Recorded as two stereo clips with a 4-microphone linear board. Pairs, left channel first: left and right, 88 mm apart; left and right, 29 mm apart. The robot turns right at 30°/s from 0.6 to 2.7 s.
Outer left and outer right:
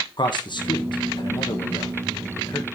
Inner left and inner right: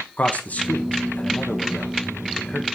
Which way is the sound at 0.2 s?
60° left (ahead or behind).